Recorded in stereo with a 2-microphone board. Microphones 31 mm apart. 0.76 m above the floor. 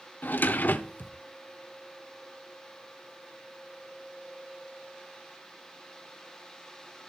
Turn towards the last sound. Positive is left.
turn(degrees=75)  # may be behind; listen again after turning